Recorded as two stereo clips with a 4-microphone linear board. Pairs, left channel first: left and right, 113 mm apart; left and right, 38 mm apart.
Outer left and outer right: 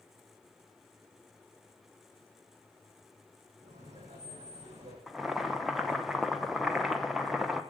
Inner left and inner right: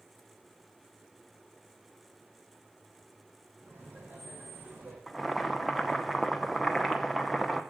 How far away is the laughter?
About 5 m.